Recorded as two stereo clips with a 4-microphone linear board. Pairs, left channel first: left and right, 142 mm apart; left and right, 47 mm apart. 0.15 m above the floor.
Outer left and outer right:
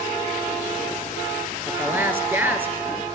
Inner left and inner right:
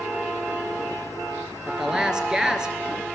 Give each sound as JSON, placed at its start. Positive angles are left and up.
{"t": 1.7, "sound": "a woman speaking", "side_deg": -15, "distance_m": 2.5}